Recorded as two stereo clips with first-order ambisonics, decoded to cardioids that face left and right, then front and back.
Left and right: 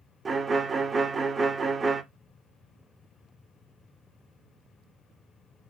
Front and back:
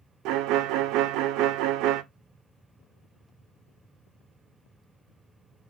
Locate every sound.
0.2 s a violin: 160° right, 0.6 m